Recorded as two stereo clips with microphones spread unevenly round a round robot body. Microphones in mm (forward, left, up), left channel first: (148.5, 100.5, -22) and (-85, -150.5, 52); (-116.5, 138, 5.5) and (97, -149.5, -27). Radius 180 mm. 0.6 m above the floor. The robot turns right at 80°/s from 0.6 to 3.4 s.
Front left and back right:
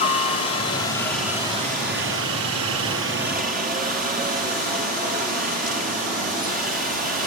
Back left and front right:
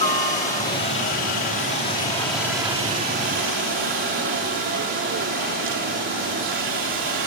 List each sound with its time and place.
0.0 s a helicopter: 65° left; by 7.3 s 70° right